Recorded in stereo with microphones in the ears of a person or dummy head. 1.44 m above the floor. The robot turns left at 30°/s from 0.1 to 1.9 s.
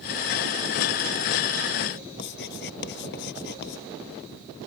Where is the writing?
60° left (ahead or behind).